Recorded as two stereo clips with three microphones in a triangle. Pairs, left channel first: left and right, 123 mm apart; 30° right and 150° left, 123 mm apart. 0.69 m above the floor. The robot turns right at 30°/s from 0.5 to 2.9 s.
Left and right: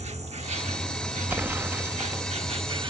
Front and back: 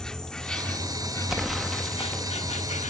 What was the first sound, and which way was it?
An insect, 115° right.